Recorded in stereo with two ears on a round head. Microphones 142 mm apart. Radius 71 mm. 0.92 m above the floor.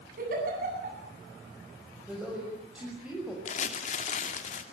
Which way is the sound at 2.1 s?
5° right (ahead or behind).